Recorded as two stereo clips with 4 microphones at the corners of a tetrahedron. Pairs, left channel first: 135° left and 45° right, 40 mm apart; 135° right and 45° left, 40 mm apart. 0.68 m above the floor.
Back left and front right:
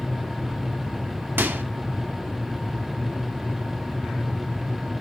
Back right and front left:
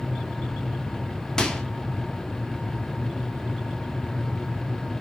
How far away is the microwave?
About 0.9 m.